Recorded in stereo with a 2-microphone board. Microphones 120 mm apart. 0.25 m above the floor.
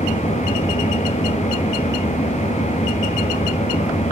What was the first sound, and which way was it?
An engine running, 80° left.